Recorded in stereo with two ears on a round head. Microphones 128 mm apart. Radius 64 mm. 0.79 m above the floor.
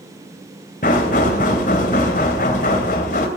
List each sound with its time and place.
0.8 s knocking: 60° left (ahead or behind), 2.5 m